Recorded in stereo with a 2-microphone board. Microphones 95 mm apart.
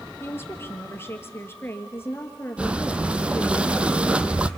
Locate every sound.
0.2 s a woman speaking: 25° left (ahead or behind), 1.8 m
2.6 s breathing: 15° right (ahead or behind), 0.7 m